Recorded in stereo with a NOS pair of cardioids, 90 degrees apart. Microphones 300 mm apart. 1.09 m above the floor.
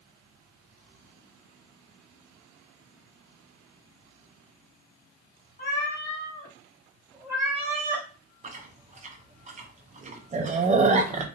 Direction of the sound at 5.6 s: 40° left.